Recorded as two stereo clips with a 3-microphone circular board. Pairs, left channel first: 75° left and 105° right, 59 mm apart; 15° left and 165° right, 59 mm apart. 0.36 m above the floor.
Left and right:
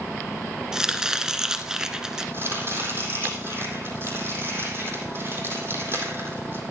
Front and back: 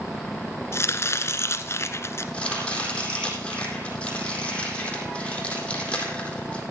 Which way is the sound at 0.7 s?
25° right.